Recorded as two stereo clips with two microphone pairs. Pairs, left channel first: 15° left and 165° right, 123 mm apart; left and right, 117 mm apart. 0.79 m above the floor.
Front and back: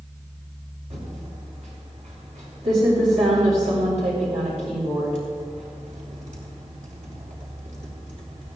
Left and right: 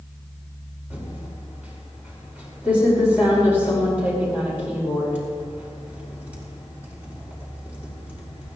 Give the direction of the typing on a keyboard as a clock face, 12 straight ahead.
6 o'clock.